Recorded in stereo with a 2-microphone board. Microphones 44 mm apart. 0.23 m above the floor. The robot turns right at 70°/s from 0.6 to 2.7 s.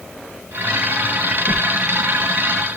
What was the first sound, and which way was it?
A whoosh, 60° right (ahead or behind).